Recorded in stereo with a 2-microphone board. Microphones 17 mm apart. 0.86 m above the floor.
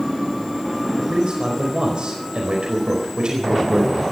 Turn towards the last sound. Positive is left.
turn(degrees=-80)